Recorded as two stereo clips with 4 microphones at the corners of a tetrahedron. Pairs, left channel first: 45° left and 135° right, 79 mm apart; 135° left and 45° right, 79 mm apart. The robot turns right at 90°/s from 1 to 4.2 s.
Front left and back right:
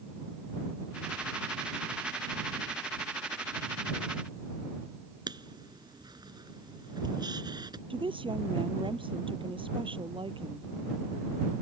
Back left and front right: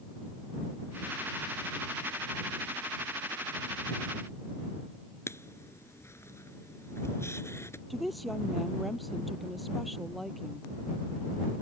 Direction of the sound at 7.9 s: 135° right.